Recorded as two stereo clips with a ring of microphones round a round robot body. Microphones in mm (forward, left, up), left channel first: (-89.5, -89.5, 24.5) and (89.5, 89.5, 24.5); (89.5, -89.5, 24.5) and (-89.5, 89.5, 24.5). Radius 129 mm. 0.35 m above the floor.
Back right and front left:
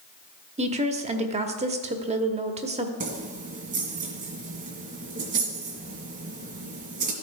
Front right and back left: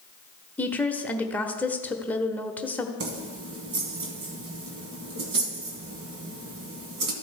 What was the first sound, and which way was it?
A woman speaking, 30° left.